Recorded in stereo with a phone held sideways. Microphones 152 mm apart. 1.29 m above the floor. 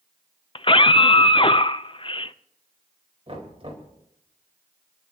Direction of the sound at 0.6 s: 35° left (ahead or behind).